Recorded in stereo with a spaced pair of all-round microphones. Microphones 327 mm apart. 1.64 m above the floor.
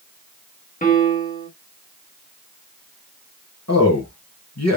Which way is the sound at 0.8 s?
25° left (ahead or behind).